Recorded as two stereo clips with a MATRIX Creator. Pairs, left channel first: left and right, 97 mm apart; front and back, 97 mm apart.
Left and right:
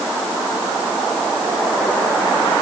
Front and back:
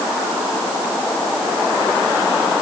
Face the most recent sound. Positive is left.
No sound to turn to.